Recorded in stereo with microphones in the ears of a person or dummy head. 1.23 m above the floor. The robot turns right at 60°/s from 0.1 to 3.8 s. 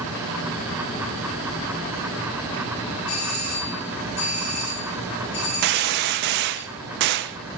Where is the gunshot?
60° right (ahead or behind), 0.6 m.